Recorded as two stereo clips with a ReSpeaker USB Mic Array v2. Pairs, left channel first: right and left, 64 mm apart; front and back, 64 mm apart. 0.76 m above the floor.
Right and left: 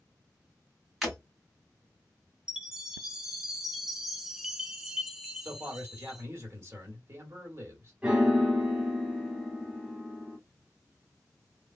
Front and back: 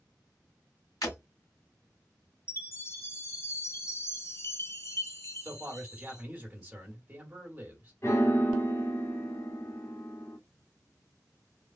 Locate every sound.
1.0 s breaking glass: 5° left, 1.8 m
2.5 s a chime: 15° left, 0.7 m
5.4 s a man speaking: 125° left, 1.6 m
8.0 s a piano: 20° left, 0.8 m